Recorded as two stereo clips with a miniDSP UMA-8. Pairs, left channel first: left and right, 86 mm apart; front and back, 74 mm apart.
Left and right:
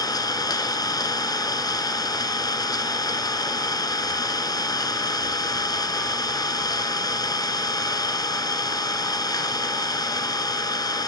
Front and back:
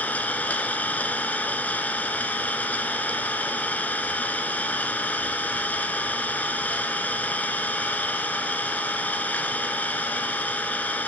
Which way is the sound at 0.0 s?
65° left.